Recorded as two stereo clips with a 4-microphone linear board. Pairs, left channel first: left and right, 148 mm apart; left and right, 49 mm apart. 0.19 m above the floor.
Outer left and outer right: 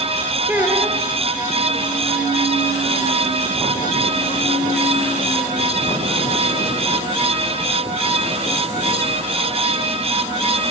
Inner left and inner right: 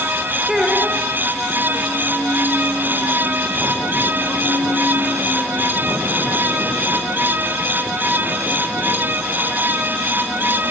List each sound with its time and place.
0.5 s a child speaking: 15° right (ahead or behind), 2.5 m